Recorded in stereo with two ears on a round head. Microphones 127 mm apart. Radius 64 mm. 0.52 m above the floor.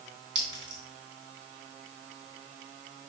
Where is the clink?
30° right (ahead or behind), 3.5 m.